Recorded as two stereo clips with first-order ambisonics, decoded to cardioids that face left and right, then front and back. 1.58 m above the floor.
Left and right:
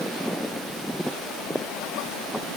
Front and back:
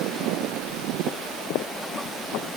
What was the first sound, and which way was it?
Only background noise.